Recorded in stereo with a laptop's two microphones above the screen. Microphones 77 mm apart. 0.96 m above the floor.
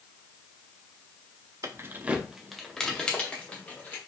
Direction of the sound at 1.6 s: 45° right (ahead or behind).